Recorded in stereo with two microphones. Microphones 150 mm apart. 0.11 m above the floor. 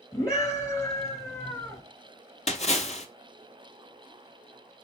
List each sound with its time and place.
0.1 s a scream: 20° left (ahead or behind), 1.5 m
2.5 s a splash: 45° left (ahead or behind), 0.6 m